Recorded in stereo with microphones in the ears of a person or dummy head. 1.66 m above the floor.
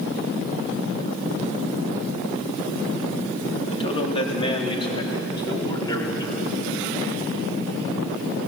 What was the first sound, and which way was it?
A man speaking, 35° left (ahead or behind).